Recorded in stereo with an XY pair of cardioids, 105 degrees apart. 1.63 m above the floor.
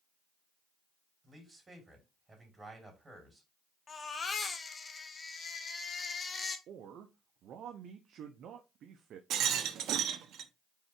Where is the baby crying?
35° left, 1.4 m.